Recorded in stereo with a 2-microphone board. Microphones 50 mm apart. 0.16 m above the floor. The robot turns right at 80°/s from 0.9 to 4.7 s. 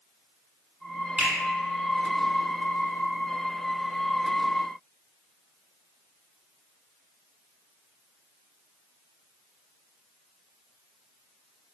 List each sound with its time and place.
1.2 s a finger snap: 25° right (ahead or behind), 1.4 m